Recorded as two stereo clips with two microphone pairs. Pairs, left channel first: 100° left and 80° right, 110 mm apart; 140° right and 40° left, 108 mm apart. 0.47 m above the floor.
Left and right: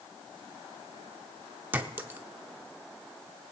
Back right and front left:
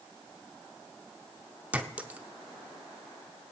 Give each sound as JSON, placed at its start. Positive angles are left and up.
{"t": 1.7, "sound": "a clink", "azimuth_deg": -25, "distance_m": 0.7}